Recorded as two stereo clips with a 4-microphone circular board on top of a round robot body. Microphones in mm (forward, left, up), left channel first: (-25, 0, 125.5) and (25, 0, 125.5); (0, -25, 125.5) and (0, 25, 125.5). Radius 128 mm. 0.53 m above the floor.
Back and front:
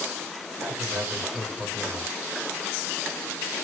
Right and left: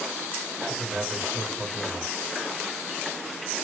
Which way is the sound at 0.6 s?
30° left.